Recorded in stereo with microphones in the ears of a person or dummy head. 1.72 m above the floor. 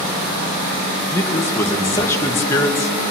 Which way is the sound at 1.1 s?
10° left (ahead or behind).